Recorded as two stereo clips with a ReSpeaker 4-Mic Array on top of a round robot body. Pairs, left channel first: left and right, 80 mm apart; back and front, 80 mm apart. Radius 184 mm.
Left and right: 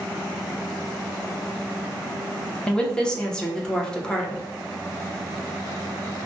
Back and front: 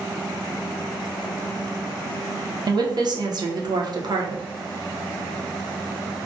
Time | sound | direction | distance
2.7 | a woman speaking | 10° left | 0.7 m